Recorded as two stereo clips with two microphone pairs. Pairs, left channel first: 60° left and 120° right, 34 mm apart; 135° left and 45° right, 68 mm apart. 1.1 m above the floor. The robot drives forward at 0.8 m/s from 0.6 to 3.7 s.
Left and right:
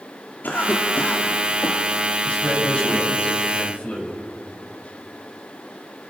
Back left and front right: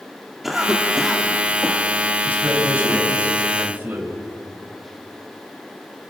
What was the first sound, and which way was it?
A cough, 40° left.